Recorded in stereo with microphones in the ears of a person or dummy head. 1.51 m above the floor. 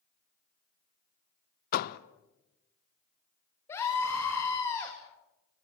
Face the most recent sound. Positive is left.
turn(degrees=25)  # may be behind; listen again after turning